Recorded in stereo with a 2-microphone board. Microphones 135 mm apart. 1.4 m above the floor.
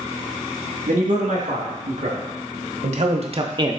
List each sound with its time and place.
0.9 s a man speaking: 75° right (ahead or behind), 2.5 m; by 3.8 s 20° right (ahead or behind), 0.5 m